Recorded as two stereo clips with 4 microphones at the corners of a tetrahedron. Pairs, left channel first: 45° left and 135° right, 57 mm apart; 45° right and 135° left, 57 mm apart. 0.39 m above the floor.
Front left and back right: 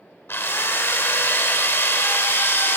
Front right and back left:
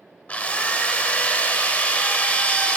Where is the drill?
10° left, 0.8 m.